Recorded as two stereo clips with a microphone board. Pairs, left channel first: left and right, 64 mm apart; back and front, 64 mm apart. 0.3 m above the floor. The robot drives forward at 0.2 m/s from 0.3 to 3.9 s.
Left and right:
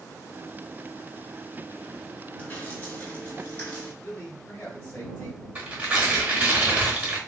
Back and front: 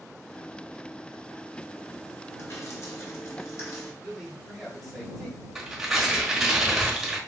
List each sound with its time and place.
2.4 s dripping: 150° left, 1.1 m; by 3.9 s 155° left, 1.4 m
4.0 s a man speaking: 90° left, 1.2 m
5.5 s tearing paper: 75° right, 1.1 m